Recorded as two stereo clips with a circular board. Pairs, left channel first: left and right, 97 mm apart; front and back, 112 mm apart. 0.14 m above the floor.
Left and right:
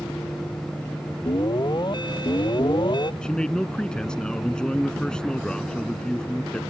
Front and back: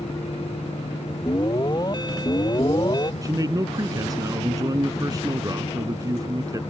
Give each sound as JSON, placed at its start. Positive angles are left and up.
{"t": 1.3, "sound": "an alarm", "azimuth_deg": 50}
{"t": 3.2, "sound": "a man speaking", "azimuth_deg": 165}